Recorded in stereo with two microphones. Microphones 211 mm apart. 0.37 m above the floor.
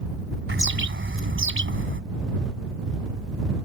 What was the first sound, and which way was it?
A bird, 70° right (ahead or behind).